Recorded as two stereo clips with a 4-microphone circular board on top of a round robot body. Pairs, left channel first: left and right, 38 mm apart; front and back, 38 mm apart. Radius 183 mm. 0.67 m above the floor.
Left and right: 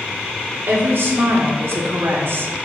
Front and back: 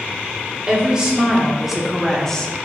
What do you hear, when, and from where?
0.7 s a woman speaking: 115° right, 3.5 m; by 2.5 s 70° right, 2 m